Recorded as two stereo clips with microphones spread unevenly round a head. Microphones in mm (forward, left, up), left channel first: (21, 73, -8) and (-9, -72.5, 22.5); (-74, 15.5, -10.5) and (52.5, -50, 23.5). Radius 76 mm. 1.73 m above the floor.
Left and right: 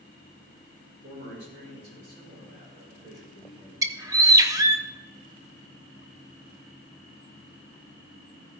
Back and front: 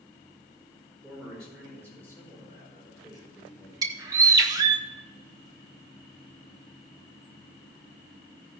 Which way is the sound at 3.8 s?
60° right.